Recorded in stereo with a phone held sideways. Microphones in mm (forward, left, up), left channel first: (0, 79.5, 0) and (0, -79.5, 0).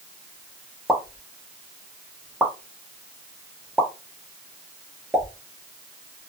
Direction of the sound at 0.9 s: 5° right (ahead or behind).